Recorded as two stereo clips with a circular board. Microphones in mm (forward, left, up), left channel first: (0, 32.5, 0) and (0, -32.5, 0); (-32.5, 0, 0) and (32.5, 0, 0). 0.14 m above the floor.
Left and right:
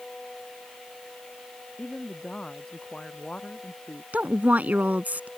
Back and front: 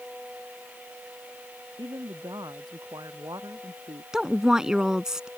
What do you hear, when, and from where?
1.8 s a woman speaking: 10° left
4.1 s a woman speaking: 65° right